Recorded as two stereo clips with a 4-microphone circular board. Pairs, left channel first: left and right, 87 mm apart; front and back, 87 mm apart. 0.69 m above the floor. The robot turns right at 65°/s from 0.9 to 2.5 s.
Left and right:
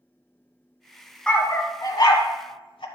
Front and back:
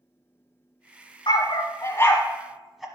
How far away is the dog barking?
About 1.2 m.